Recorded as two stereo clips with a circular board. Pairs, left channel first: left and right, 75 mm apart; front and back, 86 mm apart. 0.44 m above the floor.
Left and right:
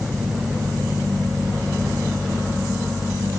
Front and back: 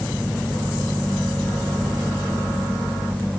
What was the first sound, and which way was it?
Only background noise.